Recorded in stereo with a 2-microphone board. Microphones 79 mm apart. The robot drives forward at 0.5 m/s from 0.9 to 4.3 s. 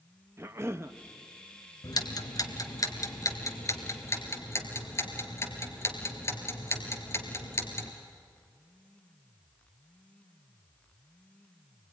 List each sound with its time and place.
0.4 s a cough: 35° right (ahead or behind), 0.7 m
1.8 s ticking: 60° left (ahead or behind), 1.5 m; by 7.9 s 35° left (ahead or behind), 2 m